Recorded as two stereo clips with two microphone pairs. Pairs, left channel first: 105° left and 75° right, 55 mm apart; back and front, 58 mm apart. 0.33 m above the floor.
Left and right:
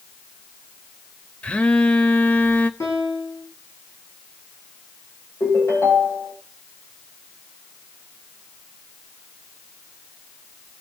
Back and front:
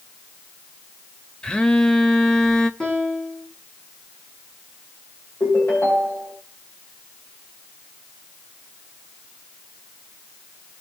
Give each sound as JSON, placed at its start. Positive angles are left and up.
{"t": 1.4, "sound": "a phone buzzing", "azimuth_deg": 125, "distance_m": 0.8}
{"t": 2.8, "sound": "a piano", "azimuth_deg": 100, "distance_m": 5.5}
{"t": 5.4, "sound": "a ringtone", "azimuth_deg": 130, "distance_m": 8.5}